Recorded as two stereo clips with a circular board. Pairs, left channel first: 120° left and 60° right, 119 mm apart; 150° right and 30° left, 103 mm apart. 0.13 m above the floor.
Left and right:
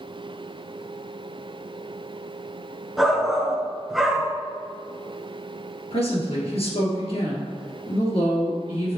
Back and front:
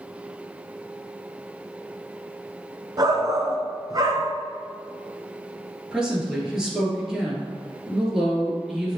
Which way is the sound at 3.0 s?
30° left.